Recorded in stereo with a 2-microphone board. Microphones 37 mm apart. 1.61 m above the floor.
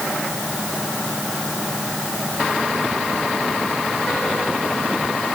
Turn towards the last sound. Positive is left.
No sound to turn to.